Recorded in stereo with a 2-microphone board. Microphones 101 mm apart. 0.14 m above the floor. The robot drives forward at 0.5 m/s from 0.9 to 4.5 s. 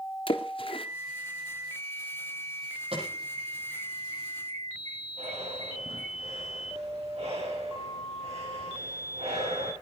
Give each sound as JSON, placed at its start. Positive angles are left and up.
{"t": 0.3, "sound": "a splash", "side_deg": 60, "distance_m": 1.3}
{"t": 2.9, "sound": "an alarm", "side_deg": -70, "distance_m": 9.5}
{"t": 5.2, "sound": "breathing", "side_deg": -80, "distance_m": 7.0}